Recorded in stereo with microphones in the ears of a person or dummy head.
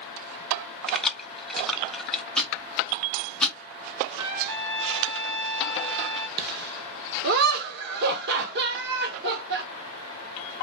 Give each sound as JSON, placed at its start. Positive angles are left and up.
{"t": 0.9, "sound": "keys jangling", "side_deg": 0, "distance_m": 0.6}
{"t": 2.4, "sound": "ticking", "side_deg": 0, "distance_m": 0.8}
{"t": 4.2, "sound": "a trumpet", "side_deg": -70, "distance_m": 1.2}
{"t": 6.4, "sound": "laughter", "side_deg": -60, "distance_m": 1.0}